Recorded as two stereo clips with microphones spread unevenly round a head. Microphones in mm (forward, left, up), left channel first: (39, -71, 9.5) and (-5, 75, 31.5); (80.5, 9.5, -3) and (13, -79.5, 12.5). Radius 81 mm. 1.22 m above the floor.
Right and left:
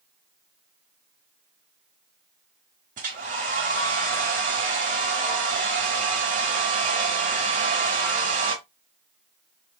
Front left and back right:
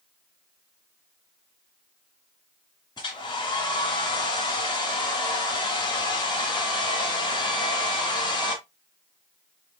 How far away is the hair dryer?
About 1.5 m.